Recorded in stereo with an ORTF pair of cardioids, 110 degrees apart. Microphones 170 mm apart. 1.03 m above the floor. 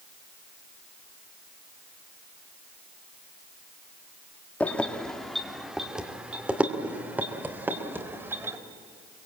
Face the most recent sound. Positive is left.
turn(degrees=-15)